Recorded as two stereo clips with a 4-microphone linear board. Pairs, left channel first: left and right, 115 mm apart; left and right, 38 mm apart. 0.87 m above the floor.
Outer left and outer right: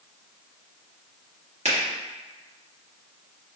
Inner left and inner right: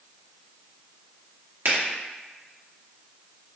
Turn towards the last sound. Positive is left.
turn(degrees=-70)  # may be behind; listen again after turning